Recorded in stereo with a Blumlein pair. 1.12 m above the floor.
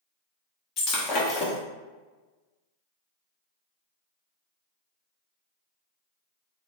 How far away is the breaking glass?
About 1.2 m.